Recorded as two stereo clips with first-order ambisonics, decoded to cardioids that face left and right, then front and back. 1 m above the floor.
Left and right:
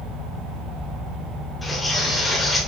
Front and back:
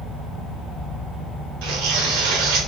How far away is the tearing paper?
About 2 m.